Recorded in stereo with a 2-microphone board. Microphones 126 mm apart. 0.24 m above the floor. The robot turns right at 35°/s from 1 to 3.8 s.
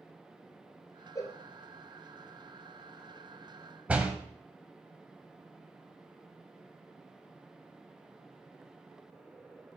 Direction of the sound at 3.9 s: 10° right (ahead or behind).